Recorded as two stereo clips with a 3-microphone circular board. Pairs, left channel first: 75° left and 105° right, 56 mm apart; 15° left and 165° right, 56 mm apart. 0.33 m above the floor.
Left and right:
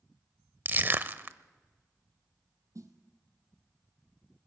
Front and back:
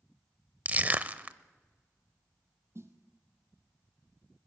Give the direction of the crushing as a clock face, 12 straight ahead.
4 o'clock.